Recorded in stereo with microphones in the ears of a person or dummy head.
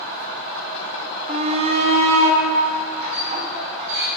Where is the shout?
35° right (ahead or behind), 0.7 m.